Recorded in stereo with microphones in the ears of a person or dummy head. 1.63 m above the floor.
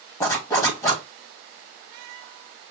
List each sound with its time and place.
0.2 s a zipper: 20° left (ahead or behind), 1.3 m